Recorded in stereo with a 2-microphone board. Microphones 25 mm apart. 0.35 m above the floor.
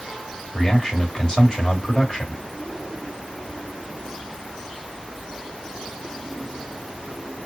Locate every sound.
0.5 s a man speaking: 25° left (ahead or behind), 1.7 m